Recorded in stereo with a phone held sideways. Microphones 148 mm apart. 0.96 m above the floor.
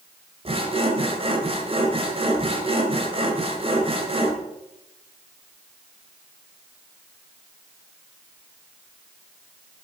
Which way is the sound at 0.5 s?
40° right (ahead or behind).